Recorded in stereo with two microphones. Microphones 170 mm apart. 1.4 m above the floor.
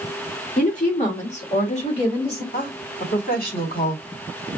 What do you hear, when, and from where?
0.6 s a woman speaking: 50° left (ahead or behind), 2 m; by 2.4 s 35° left (ahead or behind), 3 m
2.5 s a woman speaking: 55° left (ahead or behind), 2.5 m